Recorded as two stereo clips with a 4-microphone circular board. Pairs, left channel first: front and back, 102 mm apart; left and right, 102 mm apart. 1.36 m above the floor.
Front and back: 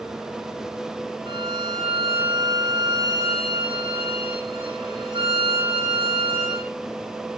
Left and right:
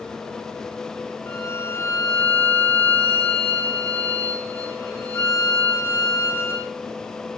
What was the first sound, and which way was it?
A violin, 155° left.